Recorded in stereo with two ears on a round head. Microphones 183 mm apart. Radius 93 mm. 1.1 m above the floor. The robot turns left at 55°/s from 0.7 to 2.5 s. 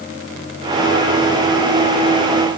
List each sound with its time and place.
Only background noise.